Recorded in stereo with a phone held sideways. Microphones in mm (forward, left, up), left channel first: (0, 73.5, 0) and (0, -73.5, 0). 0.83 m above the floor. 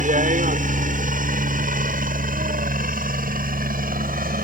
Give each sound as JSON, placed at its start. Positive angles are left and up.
{"t": 0.0, "sound": "a helicopter", "side_deg": -60}